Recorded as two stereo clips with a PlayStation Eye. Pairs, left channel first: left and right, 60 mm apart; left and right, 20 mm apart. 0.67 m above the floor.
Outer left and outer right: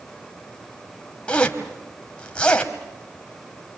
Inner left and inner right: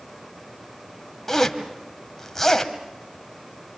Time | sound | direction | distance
1.3 | a zipper | 15° left (ahead or behind) | 1.7 m